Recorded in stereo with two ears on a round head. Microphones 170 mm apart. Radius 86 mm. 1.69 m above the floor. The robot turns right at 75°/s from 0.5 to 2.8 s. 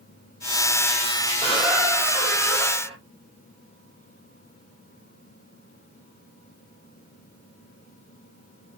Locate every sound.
1.4 s a squeak: 5° left (ahead or behind), 1.9 m; by 3.0 s 30° right (ahead or behind), 1.9 m